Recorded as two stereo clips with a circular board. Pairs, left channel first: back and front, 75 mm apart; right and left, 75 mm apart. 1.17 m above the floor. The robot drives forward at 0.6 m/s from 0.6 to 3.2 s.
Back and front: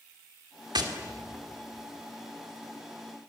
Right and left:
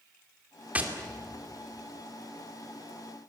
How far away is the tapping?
About 2.5 m.